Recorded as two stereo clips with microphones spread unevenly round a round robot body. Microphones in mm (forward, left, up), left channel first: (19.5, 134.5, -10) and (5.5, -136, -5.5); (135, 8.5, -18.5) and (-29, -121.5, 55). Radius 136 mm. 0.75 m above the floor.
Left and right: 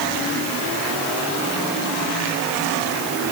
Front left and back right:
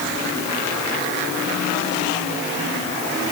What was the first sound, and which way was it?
Only background noise.